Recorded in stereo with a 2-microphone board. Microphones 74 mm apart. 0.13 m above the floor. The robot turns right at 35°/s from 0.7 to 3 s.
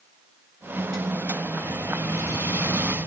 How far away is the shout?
No shout in this recording.